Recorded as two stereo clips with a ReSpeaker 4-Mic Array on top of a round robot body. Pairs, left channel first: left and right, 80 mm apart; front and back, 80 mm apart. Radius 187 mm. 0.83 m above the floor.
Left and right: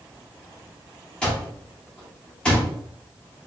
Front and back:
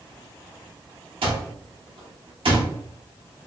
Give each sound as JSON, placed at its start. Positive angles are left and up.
{"t": 1.2, "sound": "an alarm clock", "azimuth_deg": 170, "distance_m": 0.9}